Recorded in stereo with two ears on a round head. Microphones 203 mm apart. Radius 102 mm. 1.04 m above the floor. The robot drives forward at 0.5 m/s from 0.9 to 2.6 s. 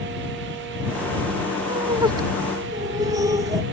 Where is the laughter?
20° right (ahead or behind); by 3.6 s 15° right (ahead or behind).